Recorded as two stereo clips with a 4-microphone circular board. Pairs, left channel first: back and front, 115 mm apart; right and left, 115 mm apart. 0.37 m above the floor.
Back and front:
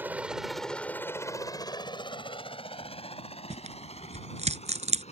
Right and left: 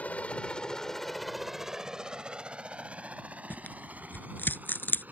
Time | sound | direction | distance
0.0 | a helicopter | 40° right | ?
3.5 | tearing paper | 15° right | ?